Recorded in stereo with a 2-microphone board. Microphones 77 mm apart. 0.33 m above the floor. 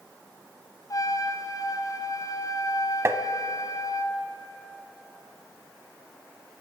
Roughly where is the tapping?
Right.